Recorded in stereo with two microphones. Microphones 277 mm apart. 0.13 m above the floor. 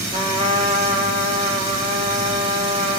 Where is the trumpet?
25° right (ahead or behind), 5 m.